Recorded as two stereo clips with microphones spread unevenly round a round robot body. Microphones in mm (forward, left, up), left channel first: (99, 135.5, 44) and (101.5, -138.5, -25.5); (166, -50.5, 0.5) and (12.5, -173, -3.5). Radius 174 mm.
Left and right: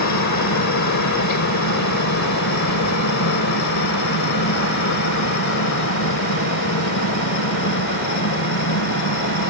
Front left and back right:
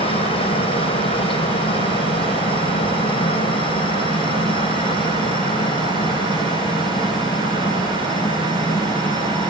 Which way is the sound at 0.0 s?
95° left.